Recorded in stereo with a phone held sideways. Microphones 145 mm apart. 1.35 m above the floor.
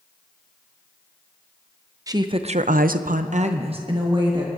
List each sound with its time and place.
2.1 s a woman speaking: 25° right (ahead or behind), 0.8 m; by 4.5 s 30° right (ahead or behind), 1.6 m